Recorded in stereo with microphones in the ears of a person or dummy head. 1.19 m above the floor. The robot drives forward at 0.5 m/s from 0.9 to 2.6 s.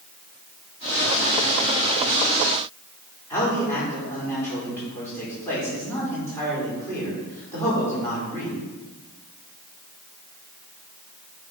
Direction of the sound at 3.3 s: 10° left (ahead or behind).